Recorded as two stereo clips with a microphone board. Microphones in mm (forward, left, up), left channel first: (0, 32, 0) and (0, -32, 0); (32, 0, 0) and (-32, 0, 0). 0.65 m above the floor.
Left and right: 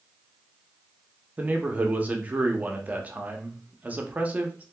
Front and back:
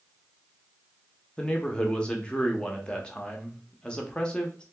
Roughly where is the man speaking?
Ahead right.